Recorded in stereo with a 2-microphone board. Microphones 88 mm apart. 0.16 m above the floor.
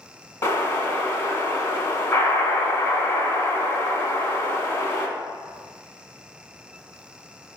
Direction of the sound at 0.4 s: 35° left (ahead or behind).